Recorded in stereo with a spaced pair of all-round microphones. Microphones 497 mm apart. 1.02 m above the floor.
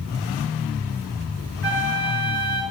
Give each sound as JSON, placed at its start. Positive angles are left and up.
{"t": 1.6, "sound": "a flute", "side_deg": -5, "distance_m": 8.0}